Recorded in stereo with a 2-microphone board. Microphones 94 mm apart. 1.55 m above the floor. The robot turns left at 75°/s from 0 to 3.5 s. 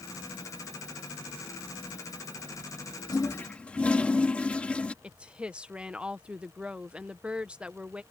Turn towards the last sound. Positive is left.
turn(degrees=-10)  # may be behind; listen again after turning